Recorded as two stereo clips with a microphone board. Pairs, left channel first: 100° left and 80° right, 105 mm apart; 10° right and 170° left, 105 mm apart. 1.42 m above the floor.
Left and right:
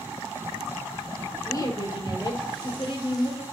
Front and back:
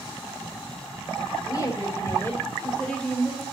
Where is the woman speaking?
45° left, 1.9 m; by 3.4 s 75° left, 2 m.